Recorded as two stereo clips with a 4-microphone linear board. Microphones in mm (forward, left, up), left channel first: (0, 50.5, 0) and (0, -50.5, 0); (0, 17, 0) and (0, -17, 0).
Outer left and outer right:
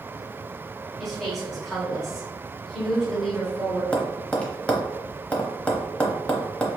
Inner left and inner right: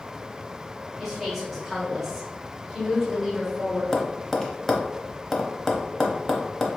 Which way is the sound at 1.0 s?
Centre (ahead or behind).